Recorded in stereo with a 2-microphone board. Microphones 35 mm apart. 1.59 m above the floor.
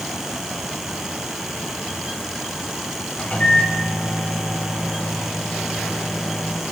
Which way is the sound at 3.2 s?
50° left (ahead or behind).